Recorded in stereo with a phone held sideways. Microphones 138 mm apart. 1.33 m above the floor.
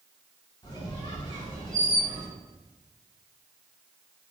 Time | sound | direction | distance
0.6 | a squeak | 30° left (ahead or behind) | 2.5 m